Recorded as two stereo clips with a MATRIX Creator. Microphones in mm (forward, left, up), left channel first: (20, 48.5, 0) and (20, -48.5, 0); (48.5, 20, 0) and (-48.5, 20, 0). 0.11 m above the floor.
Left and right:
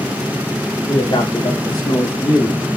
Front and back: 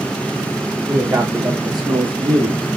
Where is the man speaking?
125° left, 5 m; by 2.7 s 150° left, 4.5 m.